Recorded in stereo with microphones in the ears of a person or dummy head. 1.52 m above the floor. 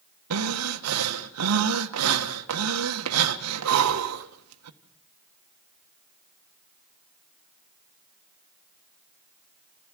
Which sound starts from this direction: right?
Breathing, at 0.3 s.